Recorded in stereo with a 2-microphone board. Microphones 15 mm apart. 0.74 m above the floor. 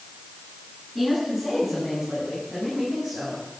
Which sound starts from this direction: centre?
A woman speaking, at 0.9 s.